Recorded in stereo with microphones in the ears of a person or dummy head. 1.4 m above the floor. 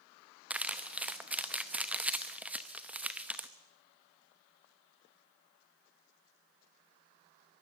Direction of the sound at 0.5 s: 5° right (ahead or behind).